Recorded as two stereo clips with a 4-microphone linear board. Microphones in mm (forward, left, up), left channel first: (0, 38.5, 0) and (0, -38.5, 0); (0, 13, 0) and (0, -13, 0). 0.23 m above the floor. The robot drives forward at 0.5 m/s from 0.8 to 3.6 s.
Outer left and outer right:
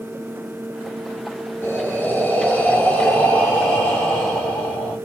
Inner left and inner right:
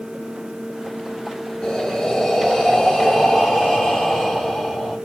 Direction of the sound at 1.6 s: 30° left (ahead or behind).